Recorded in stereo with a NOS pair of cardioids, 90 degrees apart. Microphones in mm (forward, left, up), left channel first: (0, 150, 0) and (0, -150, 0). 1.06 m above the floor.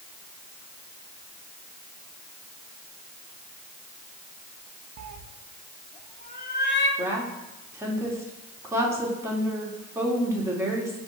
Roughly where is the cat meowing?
Right.